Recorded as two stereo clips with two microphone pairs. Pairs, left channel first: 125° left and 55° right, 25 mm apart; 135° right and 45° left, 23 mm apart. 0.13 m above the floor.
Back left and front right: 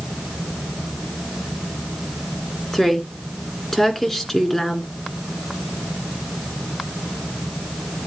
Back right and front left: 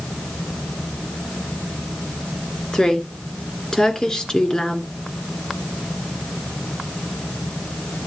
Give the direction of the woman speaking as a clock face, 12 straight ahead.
5 o'clock.